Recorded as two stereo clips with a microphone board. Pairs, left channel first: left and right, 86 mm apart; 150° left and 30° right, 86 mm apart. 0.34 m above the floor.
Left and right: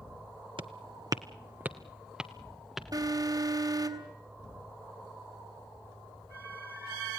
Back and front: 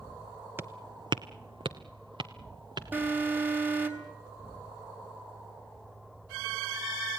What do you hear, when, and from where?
0.6 s footsteps: 95° right, 1.0 m; by 2.8 s straight ahead, 3 m
2.9 s an alarm: 90° right, 3 m